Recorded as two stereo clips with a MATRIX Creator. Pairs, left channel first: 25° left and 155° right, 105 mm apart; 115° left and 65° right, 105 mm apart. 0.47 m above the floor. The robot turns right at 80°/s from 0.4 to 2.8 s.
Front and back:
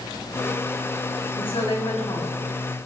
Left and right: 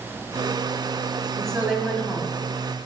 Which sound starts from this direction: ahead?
A woman speaking, at 1.4 s.